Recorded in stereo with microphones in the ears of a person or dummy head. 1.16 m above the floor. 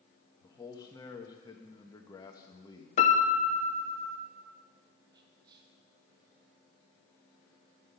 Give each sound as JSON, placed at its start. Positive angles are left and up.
{"t": 0.4, "sound": "a man speaking", "side_deg": 20, "distance_m": 1.0}
{"t": 3.0, "sound": "a piano", "side_deg": 35, "distance_m": 0.7}
{"t": 5.1, "sound": "whispering", "side_deg": -25, "distance_m": 0.7}